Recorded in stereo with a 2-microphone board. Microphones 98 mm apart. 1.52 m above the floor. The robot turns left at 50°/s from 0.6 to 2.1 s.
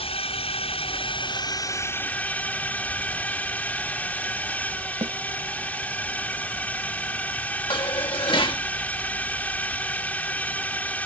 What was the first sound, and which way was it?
A drone, 90° left.